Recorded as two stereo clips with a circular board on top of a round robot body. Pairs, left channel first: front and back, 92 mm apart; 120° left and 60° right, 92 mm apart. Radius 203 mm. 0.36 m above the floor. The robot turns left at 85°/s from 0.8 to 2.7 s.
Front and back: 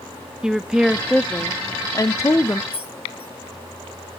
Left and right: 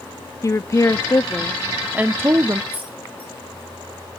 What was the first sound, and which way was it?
A woman speaking, 100° left.